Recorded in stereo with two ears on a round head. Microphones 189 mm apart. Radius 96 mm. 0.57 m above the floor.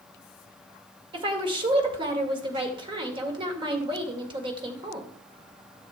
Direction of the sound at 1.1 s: 25° right (ahead or behind).